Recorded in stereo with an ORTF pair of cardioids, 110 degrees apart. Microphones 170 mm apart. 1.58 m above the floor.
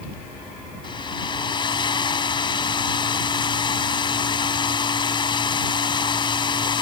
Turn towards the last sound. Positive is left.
turn(degrees=30)